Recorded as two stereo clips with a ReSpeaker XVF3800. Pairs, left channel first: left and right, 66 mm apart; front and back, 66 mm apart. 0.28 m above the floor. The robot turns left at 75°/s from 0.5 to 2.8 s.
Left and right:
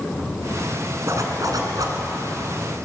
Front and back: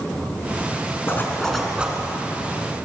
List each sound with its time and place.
1.1 s a zipper: 50° right, 3.5 m; by 2.0 s 120° right, 3.5 m